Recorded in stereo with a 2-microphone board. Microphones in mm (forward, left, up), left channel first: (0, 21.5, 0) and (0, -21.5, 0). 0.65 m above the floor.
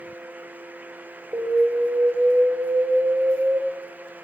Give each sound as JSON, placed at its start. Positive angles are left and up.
{"t": 1.3, "sound": "an alarm", "side_deg": -75, "distance_m": 1.0}